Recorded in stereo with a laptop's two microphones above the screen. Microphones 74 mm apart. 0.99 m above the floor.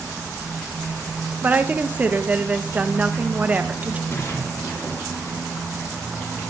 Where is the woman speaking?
20° right (ahead or behind), 0.6 m.